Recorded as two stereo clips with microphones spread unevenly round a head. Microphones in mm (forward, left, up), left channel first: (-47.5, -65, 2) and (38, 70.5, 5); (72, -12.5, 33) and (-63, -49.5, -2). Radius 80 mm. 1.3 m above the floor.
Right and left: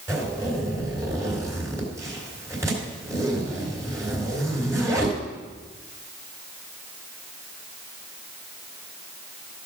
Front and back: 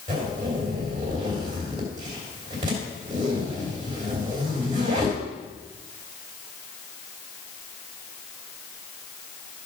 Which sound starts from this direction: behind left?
A zipper, at 0.1 s.